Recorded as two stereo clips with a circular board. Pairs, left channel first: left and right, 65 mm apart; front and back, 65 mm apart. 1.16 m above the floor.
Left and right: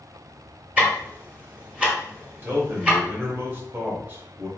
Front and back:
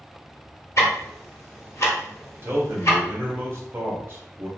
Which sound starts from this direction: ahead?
Ticking, at 0.8 s.